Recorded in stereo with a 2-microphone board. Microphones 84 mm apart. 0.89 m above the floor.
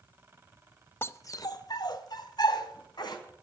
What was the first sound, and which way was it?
A dog barking, 25° left (ahead or behind).